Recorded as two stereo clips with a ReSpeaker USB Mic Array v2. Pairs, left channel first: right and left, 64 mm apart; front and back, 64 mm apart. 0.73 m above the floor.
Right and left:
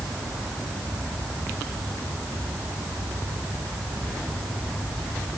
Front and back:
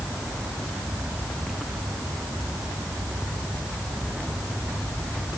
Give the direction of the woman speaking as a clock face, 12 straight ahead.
No woman speaking in this recording.